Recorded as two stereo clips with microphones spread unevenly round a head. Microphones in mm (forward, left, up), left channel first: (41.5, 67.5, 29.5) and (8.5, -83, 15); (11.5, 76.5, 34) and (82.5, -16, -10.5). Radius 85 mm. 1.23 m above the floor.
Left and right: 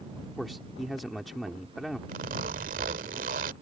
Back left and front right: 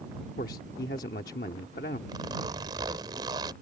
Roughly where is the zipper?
Behind right.